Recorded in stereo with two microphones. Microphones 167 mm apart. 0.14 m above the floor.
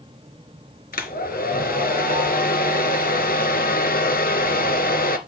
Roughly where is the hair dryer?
Left.